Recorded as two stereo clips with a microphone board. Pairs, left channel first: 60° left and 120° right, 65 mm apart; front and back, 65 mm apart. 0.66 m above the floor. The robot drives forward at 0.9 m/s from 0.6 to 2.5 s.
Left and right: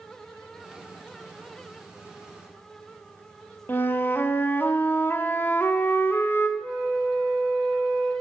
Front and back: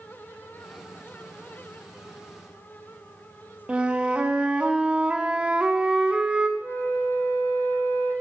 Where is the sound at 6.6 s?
50° right, 4 m.